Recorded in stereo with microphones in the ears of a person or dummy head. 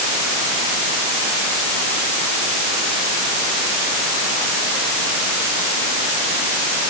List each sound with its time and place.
Only background noise.